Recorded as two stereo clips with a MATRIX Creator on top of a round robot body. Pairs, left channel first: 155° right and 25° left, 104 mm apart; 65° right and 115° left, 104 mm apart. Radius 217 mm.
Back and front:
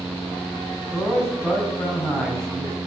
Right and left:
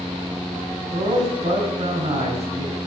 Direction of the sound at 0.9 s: 120° left.